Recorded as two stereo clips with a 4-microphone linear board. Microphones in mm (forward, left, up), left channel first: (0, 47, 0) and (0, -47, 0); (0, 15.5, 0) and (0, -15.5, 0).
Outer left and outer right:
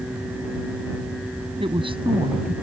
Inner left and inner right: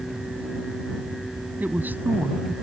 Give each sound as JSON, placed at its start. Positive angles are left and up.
{"t": 1.6, "sound": "a woman speaking", "side_deg": -60}